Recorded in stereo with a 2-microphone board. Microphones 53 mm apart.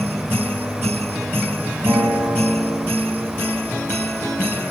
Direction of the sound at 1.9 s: 70° right (ahead or behind).